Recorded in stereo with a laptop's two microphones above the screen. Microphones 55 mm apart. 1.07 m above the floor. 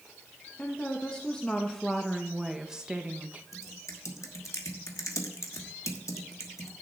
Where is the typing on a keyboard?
85° left, 1.2 m.